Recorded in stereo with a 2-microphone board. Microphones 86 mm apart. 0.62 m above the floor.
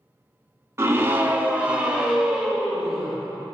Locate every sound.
0.8 s a scream: 30° right (ahead or behind), 0.7 m; by 3.1 s 5° right (ahead or behind), 2 m